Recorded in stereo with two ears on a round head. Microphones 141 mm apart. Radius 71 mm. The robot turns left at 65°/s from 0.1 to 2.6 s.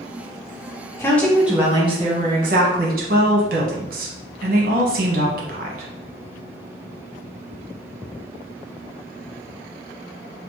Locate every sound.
1.0 s a woman speaking: 20° left, 1.1 m; by 5.9 s 80° right, 1.1 m